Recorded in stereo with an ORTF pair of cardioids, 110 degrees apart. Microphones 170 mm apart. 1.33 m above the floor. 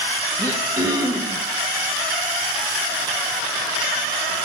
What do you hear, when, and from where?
0.4 s throat clearing: 20° right, 0.9 m